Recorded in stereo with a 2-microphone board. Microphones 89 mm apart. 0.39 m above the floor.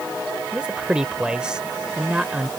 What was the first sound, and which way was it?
A man speaking, 10° right (ahead or behind).